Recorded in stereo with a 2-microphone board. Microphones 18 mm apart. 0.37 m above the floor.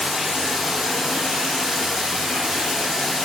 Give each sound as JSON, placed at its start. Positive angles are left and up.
{"t": 0.0, "sound": "running water", "side_deg": -30, "distance_m": 6.0}